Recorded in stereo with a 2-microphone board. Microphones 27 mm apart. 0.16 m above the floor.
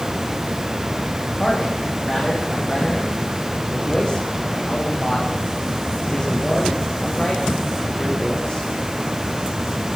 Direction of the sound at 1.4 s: 30° left (ahead or behind).